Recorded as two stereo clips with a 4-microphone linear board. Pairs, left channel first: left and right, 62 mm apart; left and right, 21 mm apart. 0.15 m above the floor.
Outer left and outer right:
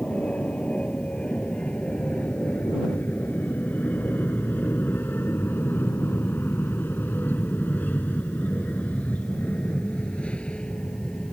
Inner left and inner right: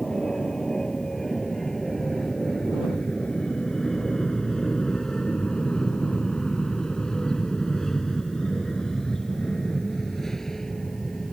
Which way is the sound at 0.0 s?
20° left (ahead or behind).